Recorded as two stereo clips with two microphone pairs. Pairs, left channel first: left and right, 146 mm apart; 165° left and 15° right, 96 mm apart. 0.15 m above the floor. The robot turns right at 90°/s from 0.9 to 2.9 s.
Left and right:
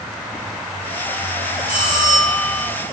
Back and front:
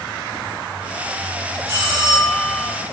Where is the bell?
40° left, 1.2 m; by 2.7 s 130° left, 1.2 m.